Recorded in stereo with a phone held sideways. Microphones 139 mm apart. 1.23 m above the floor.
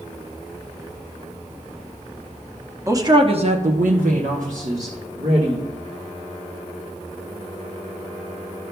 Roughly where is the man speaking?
Right.